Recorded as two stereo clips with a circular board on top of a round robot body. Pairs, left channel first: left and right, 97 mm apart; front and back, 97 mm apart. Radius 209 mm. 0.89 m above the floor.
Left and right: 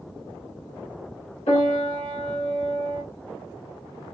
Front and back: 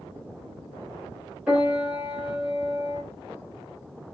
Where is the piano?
100° left, 1.2 m.